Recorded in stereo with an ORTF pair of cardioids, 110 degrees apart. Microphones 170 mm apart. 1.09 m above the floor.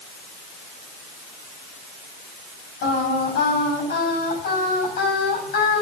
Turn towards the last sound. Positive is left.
turn(degrees=70)